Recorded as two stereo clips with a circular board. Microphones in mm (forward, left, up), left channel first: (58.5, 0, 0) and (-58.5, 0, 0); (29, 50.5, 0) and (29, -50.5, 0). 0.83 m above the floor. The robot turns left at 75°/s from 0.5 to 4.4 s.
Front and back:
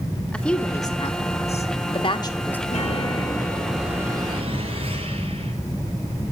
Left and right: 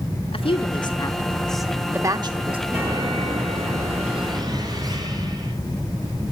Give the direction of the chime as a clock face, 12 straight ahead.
12 o'clock.